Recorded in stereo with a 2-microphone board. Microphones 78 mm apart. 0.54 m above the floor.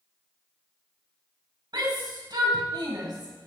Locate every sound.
1.7 s a shout: 70° right (ahead or behind), 4 m